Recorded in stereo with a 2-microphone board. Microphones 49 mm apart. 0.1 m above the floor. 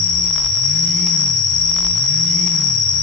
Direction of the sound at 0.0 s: 5° left (ahead or behind).